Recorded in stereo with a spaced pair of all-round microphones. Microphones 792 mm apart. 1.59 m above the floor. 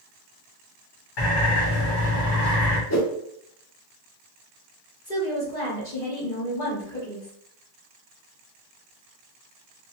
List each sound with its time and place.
1.2 s a bird: 85° left, 1.3 m
2.9 s a whoosh: 25° left (ahead or behind), 0.5 m
5.0 s a woman speaking: 75° left (ahead or behind), 1.8 m